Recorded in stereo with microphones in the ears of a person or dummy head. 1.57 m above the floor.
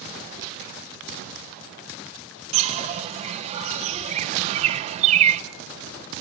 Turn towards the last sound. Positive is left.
turn(degrees=-35)  # may be behind; listen again after turning